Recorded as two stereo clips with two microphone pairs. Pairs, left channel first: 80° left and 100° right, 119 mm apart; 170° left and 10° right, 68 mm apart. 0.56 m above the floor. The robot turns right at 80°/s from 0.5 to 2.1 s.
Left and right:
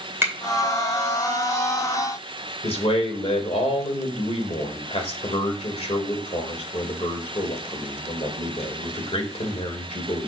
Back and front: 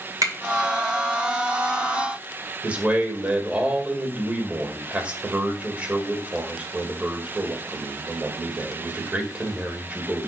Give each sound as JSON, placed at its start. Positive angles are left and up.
{"t": 0.2, "sound": "a finger snap", "azimuth_deg": -30, "distance_m": 2.5}
{"t": 2.6, "sound": "a man speaking", "azimuth_deg": 55, "distance_m": 2.0}